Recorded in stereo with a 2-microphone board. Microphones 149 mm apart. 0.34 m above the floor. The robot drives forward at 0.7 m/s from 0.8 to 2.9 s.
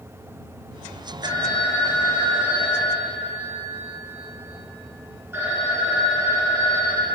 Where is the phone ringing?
25° right (ahead or behind), 1.5 m; by 7.2 s 15° right (ahead or behind), 2.5 m.